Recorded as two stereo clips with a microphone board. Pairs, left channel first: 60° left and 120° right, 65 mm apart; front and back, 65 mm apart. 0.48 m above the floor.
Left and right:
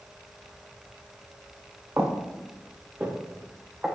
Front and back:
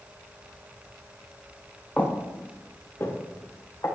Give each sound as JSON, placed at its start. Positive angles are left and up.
{"t": 2.0, "sound": "footsteps", "azimuth_deg": -65, "distance_m": 1.9}